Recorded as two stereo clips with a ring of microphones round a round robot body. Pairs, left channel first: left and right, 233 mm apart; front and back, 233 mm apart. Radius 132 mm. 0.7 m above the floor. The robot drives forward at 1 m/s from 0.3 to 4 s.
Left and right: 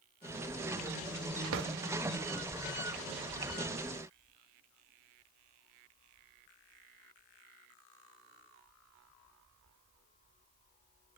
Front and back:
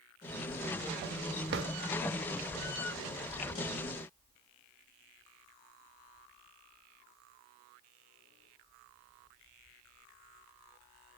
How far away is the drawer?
About 0.6 m.